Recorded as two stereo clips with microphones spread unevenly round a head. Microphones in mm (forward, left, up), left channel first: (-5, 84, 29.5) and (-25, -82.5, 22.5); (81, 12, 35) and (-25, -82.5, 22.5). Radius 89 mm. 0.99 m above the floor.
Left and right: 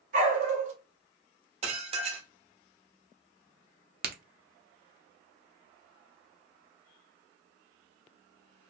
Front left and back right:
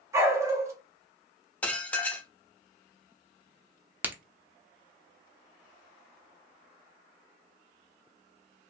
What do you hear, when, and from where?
0.1 s a dog barking: 75° right, 0.5 m
1.6 s dishes clattering: 40° right, 0.6 m
4.0 s a crack: 65° right, 0.5 m